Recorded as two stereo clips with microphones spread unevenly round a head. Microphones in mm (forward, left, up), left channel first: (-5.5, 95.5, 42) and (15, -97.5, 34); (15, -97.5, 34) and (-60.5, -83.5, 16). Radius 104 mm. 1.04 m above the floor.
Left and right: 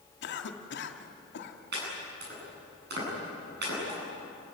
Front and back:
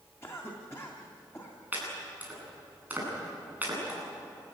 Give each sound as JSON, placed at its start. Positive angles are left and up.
{"t": 0.2, "sound": "a cough", "azimuth_deg": 65, "distance_m": 2.0}
{"t": 1.7, "sound": "chopping", "azimuth_deg": -120, "distance_m": 9.5}